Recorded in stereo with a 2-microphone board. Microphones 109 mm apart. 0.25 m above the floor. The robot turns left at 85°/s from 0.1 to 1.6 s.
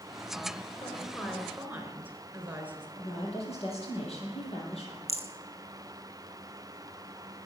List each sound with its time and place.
0.8 s a woman speaking: 50° left, 4 m; by 2.9 s 15° right, 4 m
3.0 s a woman speaking: 65° left (ahead or behind), 7 m
5.1 s a rattle: 75° left (ahead or behind), 1.5 m